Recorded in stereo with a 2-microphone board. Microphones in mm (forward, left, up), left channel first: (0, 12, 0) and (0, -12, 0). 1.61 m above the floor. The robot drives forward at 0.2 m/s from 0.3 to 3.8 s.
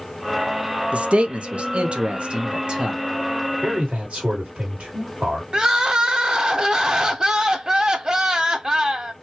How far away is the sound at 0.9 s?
About 0.6 m.